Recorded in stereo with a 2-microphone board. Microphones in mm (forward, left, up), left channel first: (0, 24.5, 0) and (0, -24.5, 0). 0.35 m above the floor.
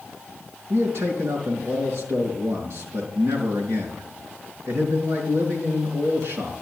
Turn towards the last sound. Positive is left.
turn(degrees=-70)  # may be behind; listen again after turning